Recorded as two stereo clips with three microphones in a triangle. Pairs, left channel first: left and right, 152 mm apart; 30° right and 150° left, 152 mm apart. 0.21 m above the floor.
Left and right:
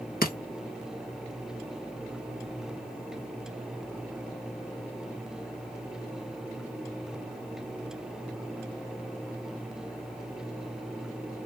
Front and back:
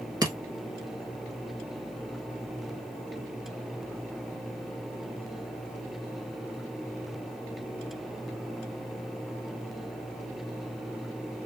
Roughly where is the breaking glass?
Left.